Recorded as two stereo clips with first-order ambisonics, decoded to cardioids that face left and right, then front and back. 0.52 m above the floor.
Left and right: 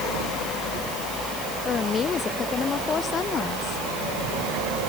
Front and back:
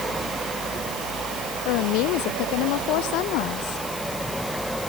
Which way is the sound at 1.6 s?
25° left.